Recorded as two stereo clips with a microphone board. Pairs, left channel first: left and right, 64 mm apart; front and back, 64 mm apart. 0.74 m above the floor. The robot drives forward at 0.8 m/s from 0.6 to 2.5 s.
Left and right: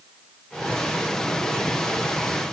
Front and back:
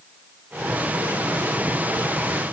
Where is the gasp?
No gasp in this recording.